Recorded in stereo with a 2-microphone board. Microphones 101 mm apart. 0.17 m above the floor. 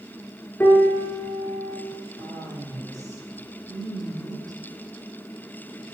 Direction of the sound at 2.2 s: 40° right (ahead or behind).